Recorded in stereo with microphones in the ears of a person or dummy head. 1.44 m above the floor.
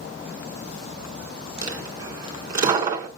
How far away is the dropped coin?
About 1.8 m.